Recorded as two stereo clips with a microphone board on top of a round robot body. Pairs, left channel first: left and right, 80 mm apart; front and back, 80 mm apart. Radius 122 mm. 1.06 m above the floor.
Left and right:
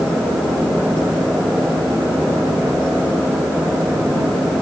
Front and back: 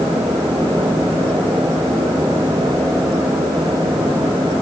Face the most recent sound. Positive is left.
No sound to turn to.